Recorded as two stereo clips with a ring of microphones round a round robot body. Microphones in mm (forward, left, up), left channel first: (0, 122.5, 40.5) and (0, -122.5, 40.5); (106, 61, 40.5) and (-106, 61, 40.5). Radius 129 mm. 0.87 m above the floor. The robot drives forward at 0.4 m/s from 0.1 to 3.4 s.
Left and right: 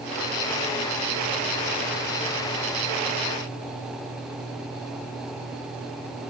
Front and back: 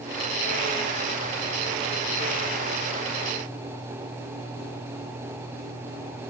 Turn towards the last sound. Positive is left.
No sound to turn to.